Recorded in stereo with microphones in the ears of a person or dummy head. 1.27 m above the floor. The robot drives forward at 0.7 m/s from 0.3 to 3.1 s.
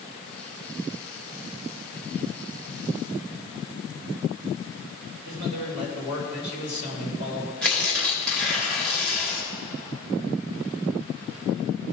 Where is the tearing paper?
5° left (ahead or behind), 2 m.